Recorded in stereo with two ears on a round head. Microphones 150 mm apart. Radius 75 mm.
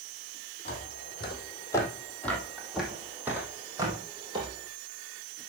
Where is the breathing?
I don't hear breathing.